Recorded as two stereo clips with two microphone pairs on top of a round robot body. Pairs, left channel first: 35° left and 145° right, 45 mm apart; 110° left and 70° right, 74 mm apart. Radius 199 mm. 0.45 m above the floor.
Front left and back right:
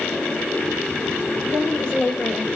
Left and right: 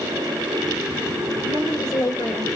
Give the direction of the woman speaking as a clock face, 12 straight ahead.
9 o'clock.